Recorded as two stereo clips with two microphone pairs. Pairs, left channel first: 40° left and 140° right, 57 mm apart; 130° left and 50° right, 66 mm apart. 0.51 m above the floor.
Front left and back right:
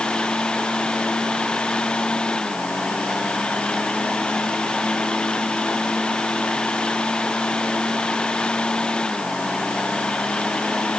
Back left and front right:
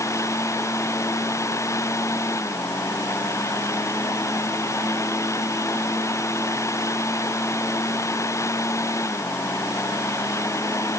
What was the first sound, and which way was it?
Only background noise.